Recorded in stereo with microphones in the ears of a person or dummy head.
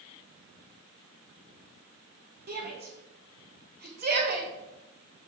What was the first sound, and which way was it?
A shout, 50° right (ahead or behind).